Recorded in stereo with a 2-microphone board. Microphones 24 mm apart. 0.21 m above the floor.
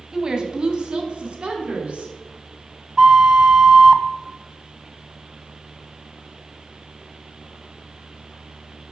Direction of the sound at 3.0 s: 25° right (ahead or behind).